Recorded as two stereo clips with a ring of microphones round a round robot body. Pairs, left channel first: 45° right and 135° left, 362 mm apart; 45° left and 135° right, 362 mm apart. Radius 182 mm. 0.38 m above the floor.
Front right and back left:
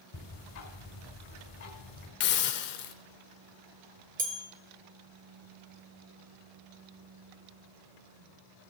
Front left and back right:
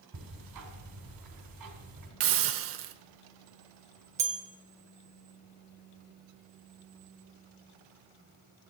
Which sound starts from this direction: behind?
A bell, at 4.2 s.